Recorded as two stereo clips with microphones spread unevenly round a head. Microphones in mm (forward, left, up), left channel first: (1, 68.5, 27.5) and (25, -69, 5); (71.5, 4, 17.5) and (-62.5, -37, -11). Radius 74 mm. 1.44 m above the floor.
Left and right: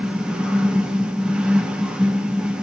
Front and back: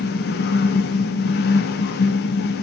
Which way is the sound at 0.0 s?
5° left.